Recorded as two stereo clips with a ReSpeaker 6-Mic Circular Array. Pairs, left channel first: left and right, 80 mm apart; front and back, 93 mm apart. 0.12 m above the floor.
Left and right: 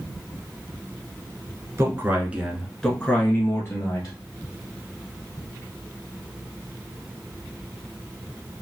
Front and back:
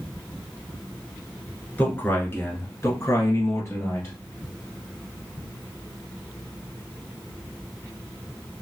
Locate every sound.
1.8 s a man speaking: 60° right, 1.4 m; by 4.2 s 50° left, 1.9 m